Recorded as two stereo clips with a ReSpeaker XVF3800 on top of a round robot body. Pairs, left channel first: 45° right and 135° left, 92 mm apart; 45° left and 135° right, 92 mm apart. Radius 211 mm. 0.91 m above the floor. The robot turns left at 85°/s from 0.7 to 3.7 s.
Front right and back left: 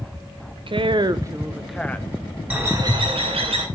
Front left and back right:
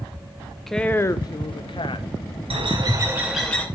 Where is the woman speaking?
130° left, 1.0 m; by 2.1 s 15° left, 1.0 m.